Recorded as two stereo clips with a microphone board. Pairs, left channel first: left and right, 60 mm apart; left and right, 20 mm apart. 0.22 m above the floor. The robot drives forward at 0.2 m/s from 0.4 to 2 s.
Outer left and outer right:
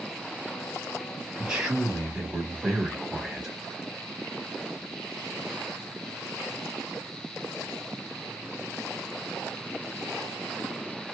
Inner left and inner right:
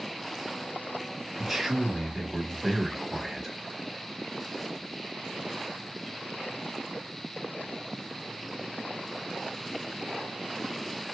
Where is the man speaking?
10° right (ahead or behind), 1.1 m.